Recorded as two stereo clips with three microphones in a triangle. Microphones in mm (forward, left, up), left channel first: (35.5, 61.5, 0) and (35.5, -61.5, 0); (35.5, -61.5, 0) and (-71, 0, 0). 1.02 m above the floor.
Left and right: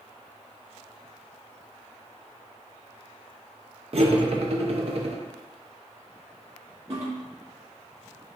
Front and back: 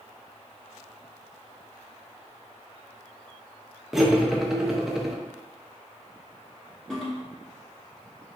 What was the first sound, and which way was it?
Cutlery clinking, 125° right.